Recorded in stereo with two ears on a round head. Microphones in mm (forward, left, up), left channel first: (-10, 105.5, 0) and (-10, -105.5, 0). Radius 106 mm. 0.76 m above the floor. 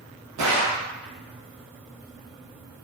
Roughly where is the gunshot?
Right.